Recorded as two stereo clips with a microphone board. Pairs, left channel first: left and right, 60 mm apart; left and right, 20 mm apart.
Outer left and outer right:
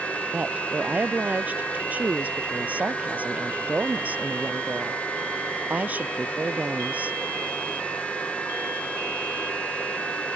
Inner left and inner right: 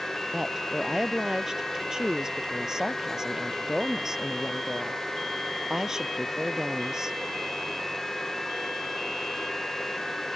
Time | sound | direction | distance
0.3 | a woman speaking | 25° right (ahead or behind) | ?